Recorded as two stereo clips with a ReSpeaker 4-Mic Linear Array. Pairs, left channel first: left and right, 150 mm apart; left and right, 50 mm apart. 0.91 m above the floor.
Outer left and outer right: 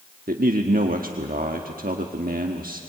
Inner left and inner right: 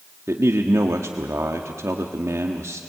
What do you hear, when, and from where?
0.3 s a man speaking: 75° right (ahead or behind), 1.3 m